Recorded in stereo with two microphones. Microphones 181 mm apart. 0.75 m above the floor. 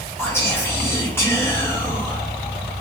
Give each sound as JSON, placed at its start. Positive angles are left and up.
{"t": 0.2, "sound": "whispering", "side_deg": 15, "distance_m": 1.0}